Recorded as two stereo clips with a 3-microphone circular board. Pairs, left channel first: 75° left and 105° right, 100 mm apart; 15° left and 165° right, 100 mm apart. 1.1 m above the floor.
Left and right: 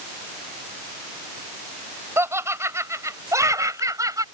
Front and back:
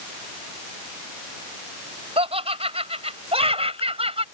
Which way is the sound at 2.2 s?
170° right.